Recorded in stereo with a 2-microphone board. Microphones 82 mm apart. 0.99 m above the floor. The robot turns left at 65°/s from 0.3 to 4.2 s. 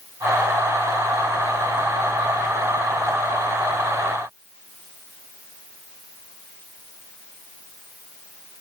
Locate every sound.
Only background noise.